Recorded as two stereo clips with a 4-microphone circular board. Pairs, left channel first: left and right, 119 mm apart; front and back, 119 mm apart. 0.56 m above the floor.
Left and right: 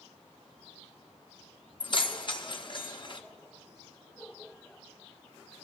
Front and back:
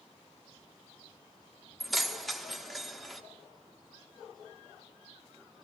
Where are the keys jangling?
90° left, 0.7 m.